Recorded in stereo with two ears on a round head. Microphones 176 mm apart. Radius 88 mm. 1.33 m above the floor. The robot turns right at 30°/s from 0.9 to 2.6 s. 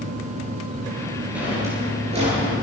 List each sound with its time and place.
1.4 s a drawer: 5° right (ahead or behind), 10 m; by 2.6 s 45° right (ahead or behind), 10 m